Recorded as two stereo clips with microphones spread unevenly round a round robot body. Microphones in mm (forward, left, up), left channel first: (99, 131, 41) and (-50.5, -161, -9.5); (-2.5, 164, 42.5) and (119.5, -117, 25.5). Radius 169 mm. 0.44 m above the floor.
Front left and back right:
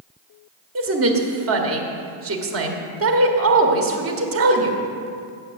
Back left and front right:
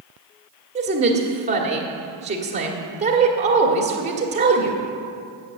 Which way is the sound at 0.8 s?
125° right.